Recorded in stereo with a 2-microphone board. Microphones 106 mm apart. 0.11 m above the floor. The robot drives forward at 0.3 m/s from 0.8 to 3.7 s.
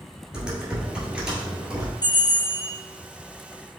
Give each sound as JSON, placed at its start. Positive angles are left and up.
{"t": 0.3, "sound": "typing on a keyboard", "side_deg": -10, "distance_m": 1.7}
{"t": 2.0, "sound": "a bell", "side_deg": 45, "distance_m": 1.9}